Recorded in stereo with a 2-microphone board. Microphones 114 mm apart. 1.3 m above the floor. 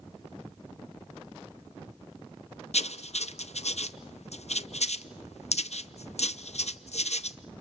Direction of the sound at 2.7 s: 70° left (ahead or behind).